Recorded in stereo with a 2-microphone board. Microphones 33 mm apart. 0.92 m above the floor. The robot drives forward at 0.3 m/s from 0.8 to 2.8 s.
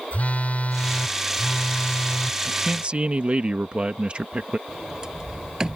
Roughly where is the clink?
No clink in this recording.